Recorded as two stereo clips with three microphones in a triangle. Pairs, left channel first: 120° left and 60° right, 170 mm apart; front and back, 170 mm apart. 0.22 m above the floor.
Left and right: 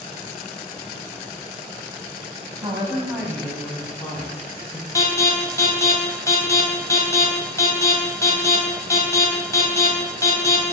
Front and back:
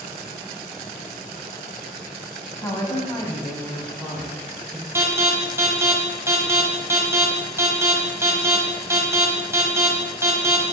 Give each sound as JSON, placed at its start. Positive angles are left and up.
{"t": 2.6, "sound": "a woman speaking", "azimuth_deg": -50, "distance_m": 1.3}
{"t": 5.0, "sound": "an alarm", "azimuth_deg": 145, "distance_m": 1.3}